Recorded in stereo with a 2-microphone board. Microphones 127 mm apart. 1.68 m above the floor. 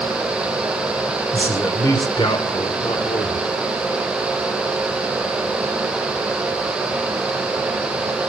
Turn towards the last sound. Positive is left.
turn(degrees=60)  # may be behind; listen again after turning